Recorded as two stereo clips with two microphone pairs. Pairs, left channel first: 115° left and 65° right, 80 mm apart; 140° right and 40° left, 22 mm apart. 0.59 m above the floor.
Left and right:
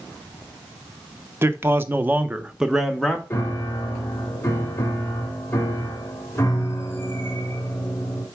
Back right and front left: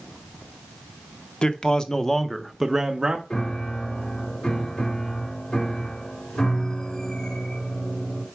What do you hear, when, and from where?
1.4 s a man speaking: 110° right, 0.9 m; by 3.2 s 30° left, 0.8 m
3.3 s a piano: 175° left, 1.6 m